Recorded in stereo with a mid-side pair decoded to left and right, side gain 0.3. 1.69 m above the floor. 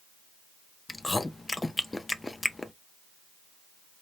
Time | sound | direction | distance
0.9 | chewing | 30° left | 0.7 m